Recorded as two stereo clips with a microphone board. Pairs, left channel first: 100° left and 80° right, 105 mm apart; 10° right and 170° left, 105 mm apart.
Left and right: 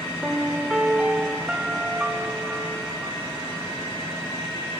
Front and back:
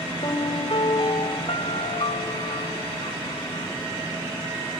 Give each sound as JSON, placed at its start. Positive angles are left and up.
{"t": 0.2, "sound": "a piano", "azimuth_deg": 0, "distance_m": 0.7}